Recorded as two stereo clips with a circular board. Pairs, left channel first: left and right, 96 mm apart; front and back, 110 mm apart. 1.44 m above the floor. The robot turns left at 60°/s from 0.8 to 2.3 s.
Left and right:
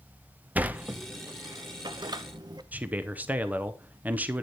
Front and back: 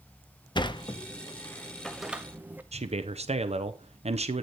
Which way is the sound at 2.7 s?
165° right.